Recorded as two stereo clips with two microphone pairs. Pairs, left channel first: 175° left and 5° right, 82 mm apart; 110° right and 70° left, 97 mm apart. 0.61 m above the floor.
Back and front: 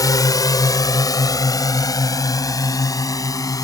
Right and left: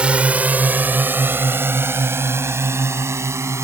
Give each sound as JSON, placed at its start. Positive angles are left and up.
{"t": 0.0, "sound": "a drone", "azimuth_deg": 145}